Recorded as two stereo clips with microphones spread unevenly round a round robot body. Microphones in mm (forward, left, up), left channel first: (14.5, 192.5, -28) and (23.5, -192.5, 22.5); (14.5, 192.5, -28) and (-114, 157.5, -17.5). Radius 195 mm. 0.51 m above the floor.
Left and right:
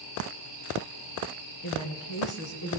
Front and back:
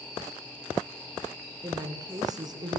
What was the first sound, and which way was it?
A woman speaking, 130° left.